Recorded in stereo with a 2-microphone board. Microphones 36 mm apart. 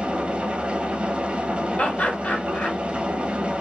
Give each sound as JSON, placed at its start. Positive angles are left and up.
{"t": 0.0, "sound": "an engine running", "side_deg": -35, "distance_m": 1.0}
{"t": 1.8, "sound": "laughter", "side_deg": 45, "distance_m": 1.7}